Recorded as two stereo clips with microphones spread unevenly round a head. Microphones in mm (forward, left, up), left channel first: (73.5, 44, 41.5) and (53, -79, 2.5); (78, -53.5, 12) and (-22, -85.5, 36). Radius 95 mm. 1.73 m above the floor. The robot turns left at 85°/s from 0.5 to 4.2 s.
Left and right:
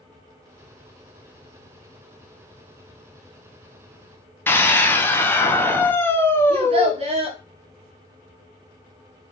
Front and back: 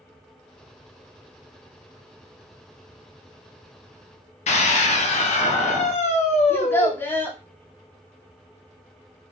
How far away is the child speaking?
About 1.2 m.